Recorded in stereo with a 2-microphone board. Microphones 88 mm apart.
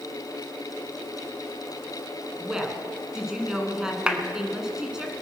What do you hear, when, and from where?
2.4 s a woman speaking: 5° right (ahead or behind), 1.9 m
4.1 s a clap: 10° right (ahead or behind), 1.2 m